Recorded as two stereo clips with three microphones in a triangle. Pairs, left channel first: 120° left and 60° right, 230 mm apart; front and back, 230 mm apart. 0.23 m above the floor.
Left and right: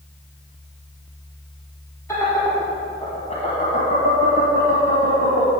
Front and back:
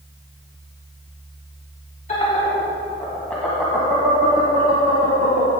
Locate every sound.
2.1 s laughter: 50° left, 1.6 m; by 5.5 s 140° left, 1.8 m